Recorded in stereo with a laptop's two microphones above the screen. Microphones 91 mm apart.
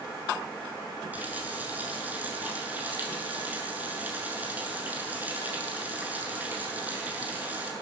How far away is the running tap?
About 7.5 m.